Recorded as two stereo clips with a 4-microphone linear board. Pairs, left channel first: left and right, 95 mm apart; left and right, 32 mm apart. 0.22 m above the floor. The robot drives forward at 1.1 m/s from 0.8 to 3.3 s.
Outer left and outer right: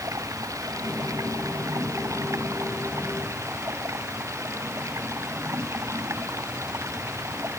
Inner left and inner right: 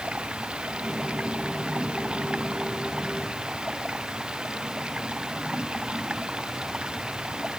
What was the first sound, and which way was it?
Running water, 35° right (ahead or behind).